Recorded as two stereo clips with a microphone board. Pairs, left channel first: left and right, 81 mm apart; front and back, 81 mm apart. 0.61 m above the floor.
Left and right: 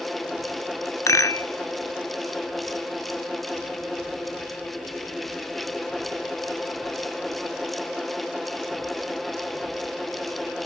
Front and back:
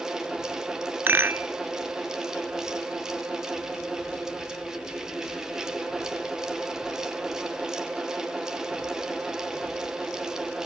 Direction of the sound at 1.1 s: 125° left.